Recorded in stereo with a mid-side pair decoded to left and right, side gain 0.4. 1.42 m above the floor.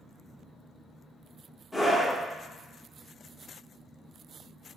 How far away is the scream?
About 1.4 m.